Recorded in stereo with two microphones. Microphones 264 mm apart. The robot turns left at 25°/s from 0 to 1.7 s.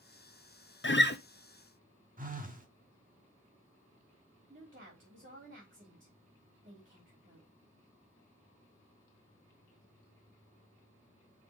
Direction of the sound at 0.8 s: 45° left (ahead or behind).